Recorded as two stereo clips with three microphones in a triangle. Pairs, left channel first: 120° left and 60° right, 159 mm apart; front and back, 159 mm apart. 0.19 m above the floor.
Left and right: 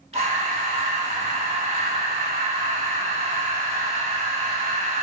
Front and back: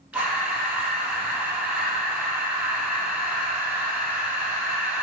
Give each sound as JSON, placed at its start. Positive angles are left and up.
{"t": 0.1, "sound": "breathing", "azimuth_deg": -105, "distance_m": 0.6}